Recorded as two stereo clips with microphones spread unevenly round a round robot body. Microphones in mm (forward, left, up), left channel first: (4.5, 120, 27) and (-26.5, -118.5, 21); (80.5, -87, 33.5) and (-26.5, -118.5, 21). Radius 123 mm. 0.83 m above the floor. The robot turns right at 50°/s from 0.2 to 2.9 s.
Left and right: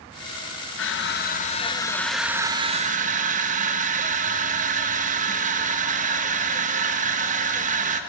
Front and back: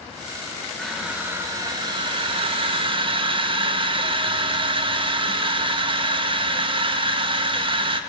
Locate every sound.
0.8 s crushing: 105° left, 0.8 m; by 8.0 s 150° right, 0.8 m